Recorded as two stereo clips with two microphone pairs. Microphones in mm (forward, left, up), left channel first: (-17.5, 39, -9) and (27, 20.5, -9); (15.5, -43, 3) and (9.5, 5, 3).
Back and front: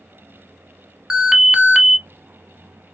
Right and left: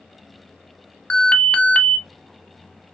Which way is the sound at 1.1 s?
80° right.